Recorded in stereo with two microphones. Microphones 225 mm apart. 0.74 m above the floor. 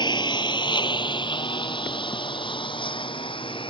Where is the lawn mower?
20° left (ahead or behind).